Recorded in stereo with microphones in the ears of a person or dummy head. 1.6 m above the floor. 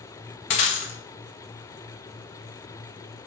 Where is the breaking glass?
40° left (ahead or behind), 1.1 m.